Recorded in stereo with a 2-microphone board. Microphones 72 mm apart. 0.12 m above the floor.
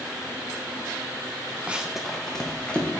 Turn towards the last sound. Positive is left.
turn(degrees=20)  # may be behind; listen again after turning